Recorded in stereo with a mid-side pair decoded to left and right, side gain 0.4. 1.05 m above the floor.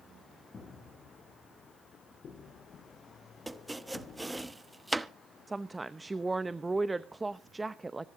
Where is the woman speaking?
20° right, 0.7 m.